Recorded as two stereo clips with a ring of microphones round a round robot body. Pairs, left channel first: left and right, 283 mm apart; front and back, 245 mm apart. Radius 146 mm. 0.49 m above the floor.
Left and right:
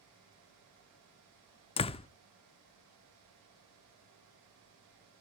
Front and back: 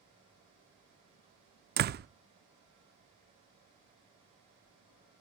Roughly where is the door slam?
Behind left.